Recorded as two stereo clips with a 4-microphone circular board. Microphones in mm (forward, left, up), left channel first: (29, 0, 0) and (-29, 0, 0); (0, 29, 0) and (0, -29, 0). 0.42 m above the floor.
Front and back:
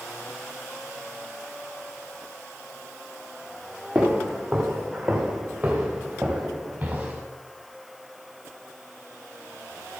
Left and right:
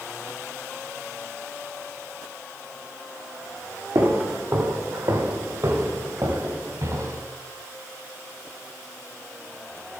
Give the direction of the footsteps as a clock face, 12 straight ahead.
3 o'clock.